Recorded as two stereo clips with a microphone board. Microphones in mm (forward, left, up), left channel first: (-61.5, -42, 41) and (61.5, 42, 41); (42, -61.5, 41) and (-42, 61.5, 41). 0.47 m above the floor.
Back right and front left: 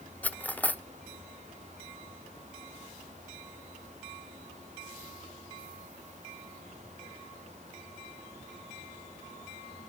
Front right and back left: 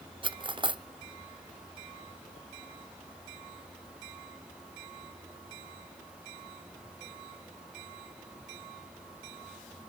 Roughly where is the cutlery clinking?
Behind left.